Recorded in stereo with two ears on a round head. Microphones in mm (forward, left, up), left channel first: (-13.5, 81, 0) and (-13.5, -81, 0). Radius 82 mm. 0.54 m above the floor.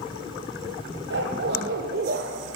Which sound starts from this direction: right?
A dog barking, at 1.1 s.